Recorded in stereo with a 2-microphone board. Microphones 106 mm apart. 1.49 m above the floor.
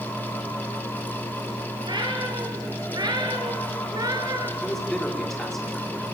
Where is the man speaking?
Centre (ahead or behind), 5 m.